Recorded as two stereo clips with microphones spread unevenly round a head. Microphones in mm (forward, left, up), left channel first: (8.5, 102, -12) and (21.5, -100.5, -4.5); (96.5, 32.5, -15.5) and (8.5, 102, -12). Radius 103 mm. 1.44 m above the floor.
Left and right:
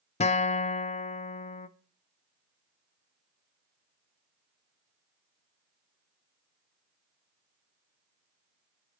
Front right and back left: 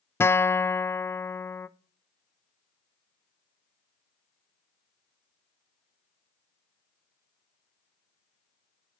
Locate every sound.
0.2 s a guitar: 35° left, 0.6 m